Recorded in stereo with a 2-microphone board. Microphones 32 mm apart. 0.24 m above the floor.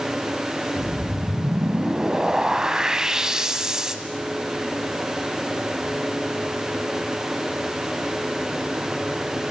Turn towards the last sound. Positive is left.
turn(degrees=-20)  # may be behind; listen again after turning